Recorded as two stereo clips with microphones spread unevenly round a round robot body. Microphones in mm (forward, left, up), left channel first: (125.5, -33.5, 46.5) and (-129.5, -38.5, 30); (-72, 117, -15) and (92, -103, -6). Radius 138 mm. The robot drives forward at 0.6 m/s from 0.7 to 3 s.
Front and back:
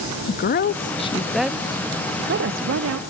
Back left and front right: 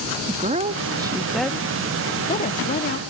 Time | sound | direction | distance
0.3 | a woman speaking | straight ahead | 0.7 m